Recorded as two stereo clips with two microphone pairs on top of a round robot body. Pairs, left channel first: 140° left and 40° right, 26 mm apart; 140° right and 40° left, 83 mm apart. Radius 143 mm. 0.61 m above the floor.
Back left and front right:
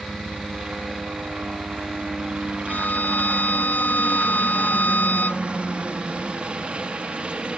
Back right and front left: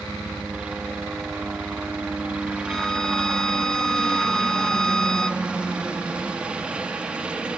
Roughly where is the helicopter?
Ahead right.